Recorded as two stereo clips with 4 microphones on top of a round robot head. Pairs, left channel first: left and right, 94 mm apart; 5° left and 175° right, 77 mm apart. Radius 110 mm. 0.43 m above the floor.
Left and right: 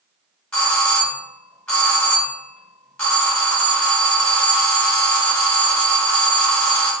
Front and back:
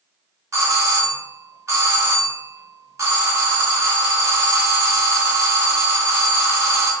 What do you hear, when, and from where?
0.5 s a doorbell: 165° left, 1.7 m